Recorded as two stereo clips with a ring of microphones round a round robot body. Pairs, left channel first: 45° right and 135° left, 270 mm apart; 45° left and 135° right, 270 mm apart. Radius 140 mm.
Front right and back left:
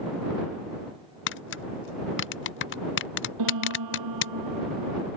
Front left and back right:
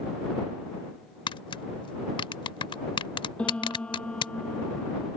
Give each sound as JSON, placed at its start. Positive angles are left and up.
{"t": 1.3, "sound": "tapping", "azimuth_deg": -20}
{"t": 3.4, "sound": "a piano", "azimuth_deg": 130}